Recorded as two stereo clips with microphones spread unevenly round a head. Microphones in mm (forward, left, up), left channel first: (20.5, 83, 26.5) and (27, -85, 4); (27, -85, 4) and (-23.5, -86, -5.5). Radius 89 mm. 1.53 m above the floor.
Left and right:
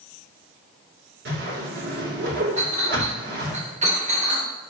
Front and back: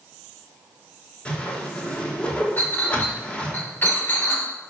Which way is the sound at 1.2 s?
60° right.